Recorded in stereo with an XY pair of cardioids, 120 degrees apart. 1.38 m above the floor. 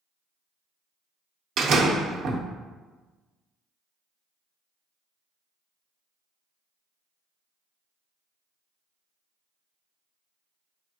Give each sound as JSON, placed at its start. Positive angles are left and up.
{"t": 1.6, "sound": "a door slam", "azimuth_deg": -65, "distance_m": 0.7}